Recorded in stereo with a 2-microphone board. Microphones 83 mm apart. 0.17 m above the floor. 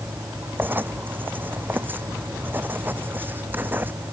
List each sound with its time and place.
0.6 s writing: 25° right (ahead or behind)